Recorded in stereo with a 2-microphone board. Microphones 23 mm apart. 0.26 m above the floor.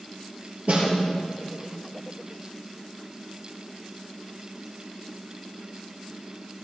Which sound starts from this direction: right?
A snare drum, at 0.7 s.